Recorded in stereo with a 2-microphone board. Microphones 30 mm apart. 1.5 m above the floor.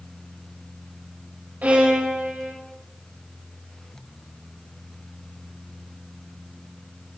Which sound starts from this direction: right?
A violin, at 1.6 s.